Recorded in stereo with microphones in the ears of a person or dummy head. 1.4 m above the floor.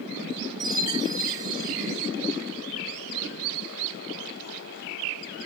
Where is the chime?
20° right (ahead or behind), 1.7 m.